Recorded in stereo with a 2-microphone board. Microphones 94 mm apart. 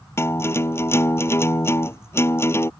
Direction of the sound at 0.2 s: 25° left (ahead or behind).